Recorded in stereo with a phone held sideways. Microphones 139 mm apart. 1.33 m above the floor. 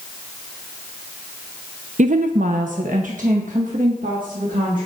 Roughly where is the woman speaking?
Right.